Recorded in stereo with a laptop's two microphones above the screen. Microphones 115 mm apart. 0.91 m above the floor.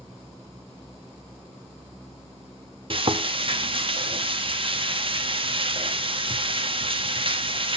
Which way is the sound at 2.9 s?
50° right (ahead or behind).